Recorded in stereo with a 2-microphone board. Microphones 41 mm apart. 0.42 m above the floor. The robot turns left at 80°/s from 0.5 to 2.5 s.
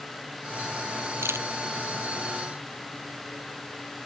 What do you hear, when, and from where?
1.2 s a camera shutter: 75° right (ahead or behind); by 1.5 s 80° right